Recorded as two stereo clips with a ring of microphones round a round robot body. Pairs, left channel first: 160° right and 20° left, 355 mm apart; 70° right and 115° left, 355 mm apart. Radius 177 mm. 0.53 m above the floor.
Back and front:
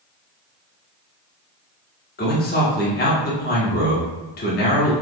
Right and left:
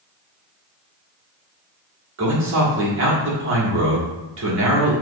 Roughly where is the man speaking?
Behind left.